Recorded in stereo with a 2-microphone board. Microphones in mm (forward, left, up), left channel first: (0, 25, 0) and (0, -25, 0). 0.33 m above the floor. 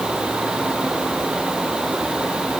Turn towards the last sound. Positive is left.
No sound to turn to.